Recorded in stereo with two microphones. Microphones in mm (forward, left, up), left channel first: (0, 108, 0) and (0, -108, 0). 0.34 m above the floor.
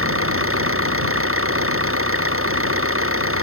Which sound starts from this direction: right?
An engine running, at 0.0 s.